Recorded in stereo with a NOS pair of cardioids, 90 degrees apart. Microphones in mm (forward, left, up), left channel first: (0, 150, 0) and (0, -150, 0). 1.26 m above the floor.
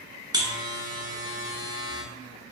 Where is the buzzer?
15° right, 0.9 m.